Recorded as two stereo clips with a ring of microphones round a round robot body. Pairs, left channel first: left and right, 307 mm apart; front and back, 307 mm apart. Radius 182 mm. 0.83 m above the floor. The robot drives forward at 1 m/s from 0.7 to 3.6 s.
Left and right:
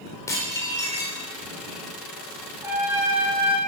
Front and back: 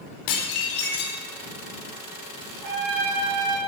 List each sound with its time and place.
0.3 s dishes clattering: 10° left, 2 m
2.6 s a trumpet: 175° right, 4 m